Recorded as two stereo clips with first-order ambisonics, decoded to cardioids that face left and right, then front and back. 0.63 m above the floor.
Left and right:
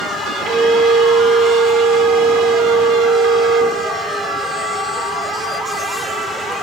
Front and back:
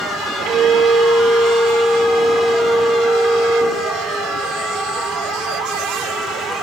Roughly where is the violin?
Behind right.